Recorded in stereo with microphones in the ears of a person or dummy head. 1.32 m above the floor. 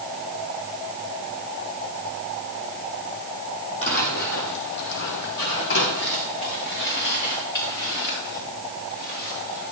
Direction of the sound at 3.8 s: 35° left (ahead or behind).